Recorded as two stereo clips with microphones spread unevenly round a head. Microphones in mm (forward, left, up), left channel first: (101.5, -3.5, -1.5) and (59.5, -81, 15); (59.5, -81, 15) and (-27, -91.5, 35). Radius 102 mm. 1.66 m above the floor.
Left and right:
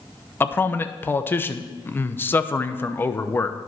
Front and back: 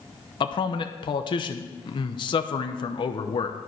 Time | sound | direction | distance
0.4 | a man speaking | 5° right | 0.8 m